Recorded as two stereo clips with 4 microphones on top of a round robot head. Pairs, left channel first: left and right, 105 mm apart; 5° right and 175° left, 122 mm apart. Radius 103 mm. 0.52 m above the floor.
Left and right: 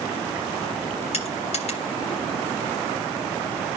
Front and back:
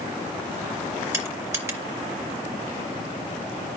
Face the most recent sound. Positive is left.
turn(degrees=105)